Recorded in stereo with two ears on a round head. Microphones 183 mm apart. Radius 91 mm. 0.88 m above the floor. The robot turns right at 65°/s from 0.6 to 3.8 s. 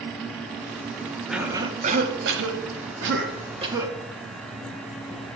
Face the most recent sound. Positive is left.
turn(degrees=-15)